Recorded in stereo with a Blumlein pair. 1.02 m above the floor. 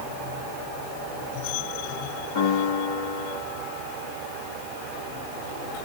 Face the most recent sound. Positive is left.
turn(degrees=60)